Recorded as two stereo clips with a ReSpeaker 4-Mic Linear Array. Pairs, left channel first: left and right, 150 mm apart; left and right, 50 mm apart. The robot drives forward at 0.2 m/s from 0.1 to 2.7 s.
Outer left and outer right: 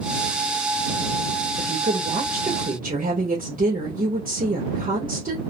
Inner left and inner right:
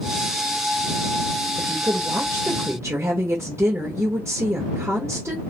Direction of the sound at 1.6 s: 70° right (ahead or behind).